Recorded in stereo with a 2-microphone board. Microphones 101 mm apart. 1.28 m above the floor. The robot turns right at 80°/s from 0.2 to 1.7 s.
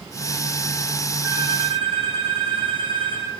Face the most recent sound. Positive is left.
turn(degrees=-115)